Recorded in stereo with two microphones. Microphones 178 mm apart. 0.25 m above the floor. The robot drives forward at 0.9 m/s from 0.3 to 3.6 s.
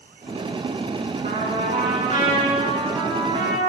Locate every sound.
1.2 s a trumpet: 50° right (ahead or behind), 2.5 m; by 3.7 s 30° right (ahead or behind), 4 m